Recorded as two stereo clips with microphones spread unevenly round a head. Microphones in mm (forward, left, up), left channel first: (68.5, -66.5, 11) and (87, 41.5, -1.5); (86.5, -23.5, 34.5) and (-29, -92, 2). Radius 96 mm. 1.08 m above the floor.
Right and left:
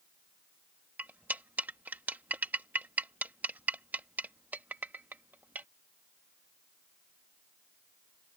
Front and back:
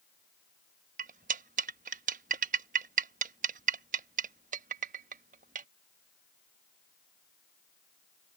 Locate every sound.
1.0 s cutlery clinking: 165° left